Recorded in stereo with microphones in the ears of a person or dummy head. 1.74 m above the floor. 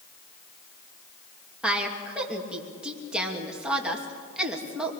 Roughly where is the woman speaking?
Centre.